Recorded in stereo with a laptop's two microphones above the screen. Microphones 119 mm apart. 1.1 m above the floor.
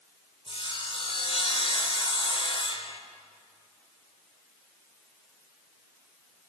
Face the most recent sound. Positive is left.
turn(degrees=50)  # may be behind; listen again after turning